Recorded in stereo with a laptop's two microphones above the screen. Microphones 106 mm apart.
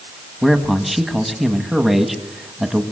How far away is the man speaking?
About 1.5 m.